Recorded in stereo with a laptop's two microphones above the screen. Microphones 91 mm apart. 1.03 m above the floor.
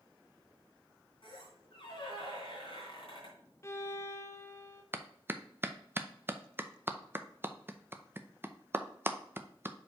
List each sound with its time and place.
1.2 s a squeak: 70° left (ahead or behind), 3 m
3.6 s a violin: 30° left (ahead or behind), 0.6 m
4.9 s a clap: 25° right (ahead or behind), 0.6 m